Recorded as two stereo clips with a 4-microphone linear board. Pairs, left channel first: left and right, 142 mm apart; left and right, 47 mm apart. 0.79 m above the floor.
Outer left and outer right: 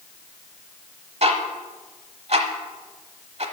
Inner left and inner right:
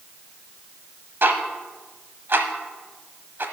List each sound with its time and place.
1.2 s ticking: 50° right (ahead or behind), 1.0 m